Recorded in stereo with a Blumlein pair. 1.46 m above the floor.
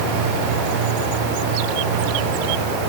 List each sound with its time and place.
Only background noise.